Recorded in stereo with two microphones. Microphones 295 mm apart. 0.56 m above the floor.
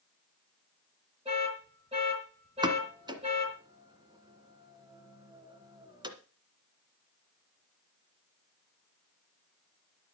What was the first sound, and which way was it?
An alarm, 20° right (ahead or behind).